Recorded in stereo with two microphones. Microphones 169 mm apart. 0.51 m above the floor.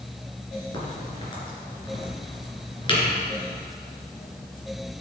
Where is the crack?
30° left (ahead or behind), 2.5 m.